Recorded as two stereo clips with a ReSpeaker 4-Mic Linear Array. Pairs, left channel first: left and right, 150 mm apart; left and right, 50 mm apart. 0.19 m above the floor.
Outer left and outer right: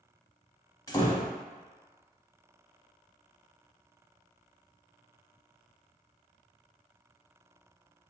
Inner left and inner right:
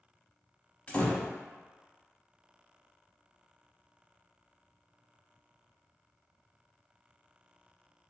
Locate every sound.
0.9 s a door slam: 25° left (ahead or behind), 0.7 m